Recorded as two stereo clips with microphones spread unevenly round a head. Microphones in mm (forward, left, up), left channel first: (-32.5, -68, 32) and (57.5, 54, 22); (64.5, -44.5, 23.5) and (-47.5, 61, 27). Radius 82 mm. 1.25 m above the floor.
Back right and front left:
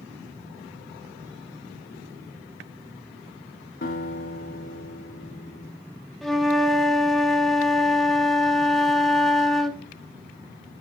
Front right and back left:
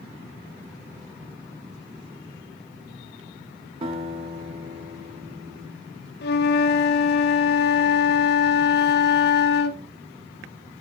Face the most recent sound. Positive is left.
turn(degrees=-35)